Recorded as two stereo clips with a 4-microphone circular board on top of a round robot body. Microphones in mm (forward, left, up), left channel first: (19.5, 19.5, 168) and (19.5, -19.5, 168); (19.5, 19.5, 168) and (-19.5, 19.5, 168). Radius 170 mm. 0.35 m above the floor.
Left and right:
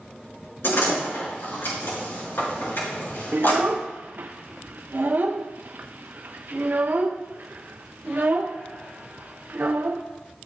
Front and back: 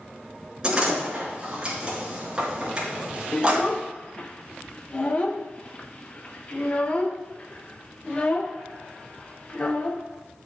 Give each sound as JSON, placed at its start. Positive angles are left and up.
{"t": 0.6, "sound": "a door slam", "azimuth_deg": 110, "distance_m": 5.0}
{"t": 3.3, "sound": "a child speaking", "azimuth_deg": -55, "distance_m": 0.7}